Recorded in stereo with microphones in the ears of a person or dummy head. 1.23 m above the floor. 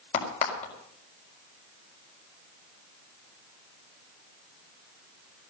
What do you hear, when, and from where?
0.1 s a crack: 40° left (ahead or behind), 4.5 m